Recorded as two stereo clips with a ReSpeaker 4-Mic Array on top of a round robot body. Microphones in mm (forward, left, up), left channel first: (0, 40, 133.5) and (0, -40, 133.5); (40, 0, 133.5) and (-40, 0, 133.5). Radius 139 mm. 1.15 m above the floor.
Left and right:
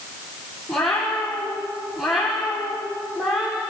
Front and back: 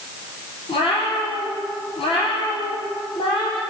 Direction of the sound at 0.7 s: 5° left.